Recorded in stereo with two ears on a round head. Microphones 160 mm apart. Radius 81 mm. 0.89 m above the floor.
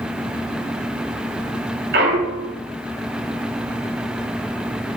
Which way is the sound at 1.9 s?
65° right (ahead or behind).